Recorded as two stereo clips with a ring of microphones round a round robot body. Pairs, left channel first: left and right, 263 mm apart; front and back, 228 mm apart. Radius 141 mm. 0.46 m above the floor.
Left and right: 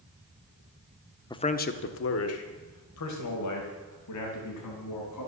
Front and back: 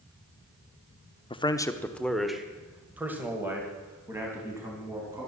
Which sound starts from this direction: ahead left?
A man speaking, at 1.3 s.